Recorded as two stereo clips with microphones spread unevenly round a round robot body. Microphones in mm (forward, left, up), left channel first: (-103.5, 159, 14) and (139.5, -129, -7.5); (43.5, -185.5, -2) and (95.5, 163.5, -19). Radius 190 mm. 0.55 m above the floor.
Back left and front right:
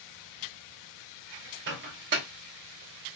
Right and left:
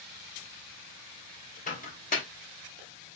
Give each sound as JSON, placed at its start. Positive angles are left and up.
{"t": 1.7, "sound": "a microwave", "azimuth_deg": -45, "distance_m": 0.8}